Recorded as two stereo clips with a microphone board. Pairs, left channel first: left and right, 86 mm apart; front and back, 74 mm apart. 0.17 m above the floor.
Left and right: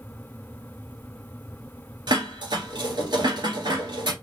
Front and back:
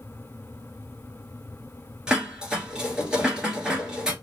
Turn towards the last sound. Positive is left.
turn(degrees=-100)